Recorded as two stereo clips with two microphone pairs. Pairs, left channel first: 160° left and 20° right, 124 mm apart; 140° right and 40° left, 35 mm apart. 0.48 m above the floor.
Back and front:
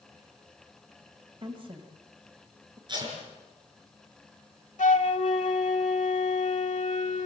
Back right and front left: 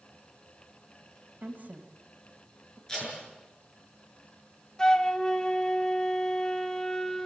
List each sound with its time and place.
1.4 s a woman speaking: 15° left, 2.0 m
2.9 s tape being pulled: 70° right, 6.5 m
4.8 s a flute: 155° left, 0.9 m